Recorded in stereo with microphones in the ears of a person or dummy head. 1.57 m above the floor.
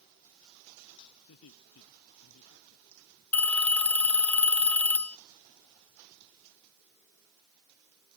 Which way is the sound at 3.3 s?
5° left (ahead or behind).